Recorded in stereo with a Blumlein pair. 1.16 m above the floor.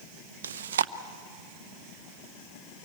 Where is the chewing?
60° right, 0.6 m.